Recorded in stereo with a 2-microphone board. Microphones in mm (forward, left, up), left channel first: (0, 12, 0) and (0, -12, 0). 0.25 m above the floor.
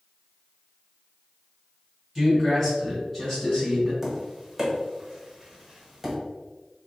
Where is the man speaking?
10° right (ahead or behind), 1.6 m; by 3.9 s 25° left (ahead or behind), 1.7 m.